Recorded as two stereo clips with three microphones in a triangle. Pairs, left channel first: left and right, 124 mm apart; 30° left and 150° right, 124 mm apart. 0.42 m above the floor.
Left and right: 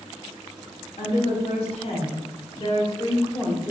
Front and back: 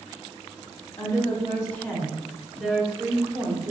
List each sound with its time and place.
1.0 s a woman speaking: 75° left, 1.4 m; by 3.7 s 155° left, 1.2 m